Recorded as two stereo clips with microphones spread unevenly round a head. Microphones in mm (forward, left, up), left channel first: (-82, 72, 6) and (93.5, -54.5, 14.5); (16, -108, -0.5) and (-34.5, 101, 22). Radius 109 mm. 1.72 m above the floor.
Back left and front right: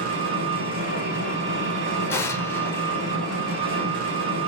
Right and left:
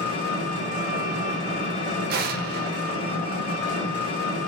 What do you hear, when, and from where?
0.0 s an engine running: 15° right, 1.6 m
2.1 s an explosion: 65° left, 0.5 m